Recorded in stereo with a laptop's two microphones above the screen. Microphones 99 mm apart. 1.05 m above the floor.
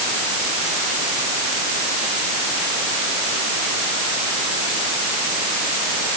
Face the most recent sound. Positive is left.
No sound to turn to.